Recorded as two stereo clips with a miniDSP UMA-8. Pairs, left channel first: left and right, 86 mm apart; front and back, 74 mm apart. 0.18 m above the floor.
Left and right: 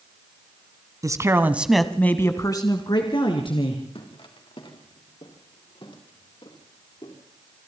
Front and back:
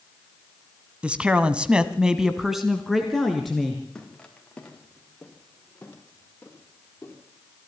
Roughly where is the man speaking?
Right.